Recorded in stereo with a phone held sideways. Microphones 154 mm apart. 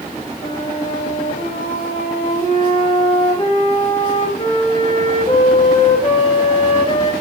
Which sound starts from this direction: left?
A flute, at 0.4 s.